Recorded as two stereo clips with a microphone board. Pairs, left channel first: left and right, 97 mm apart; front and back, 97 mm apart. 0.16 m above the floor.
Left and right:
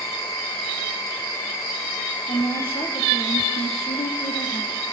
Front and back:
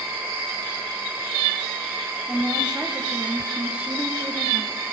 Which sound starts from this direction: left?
A woman speaking, at 2.3 s.